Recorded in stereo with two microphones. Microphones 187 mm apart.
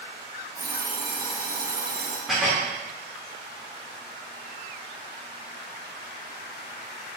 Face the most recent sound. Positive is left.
turn(degrees=0)  # may be behind; listen again after turning